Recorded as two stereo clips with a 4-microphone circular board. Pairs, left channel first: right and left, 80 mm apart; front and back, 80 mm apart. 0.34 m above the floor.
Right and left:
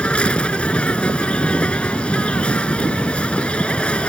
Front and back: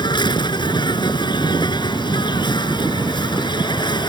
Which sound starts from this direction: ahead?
An insect, at 0.0 s.